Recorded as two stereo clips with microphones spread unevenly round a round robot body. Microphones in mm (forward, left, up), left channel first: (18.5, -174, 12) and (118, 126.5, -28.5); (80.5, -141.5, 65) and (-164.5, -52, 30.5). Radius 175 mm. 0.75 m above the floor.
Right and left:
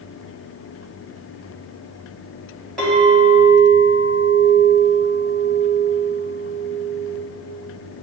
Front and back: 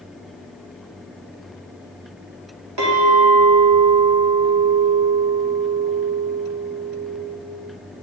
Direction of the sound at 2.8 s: 160° left.